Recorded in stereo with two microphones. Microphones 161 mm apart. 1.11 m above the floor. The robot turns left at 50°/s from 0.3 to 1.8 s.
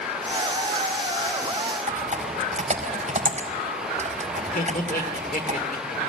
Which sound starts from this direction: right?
Typing on a keyboard, at 1.9 s.